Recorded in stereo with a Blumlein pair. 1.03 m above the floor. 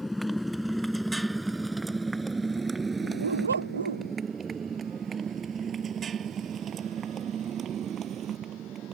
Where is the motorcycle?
Straight ahead; by 8.9 s 30° right.